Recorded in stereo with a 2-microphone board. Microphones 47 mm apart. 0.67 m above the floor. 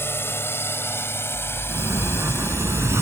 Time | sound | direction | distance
0.0 | a drone | 55° left (ahead or behind) | ?
1.7 | a sliding door | 85° right | ?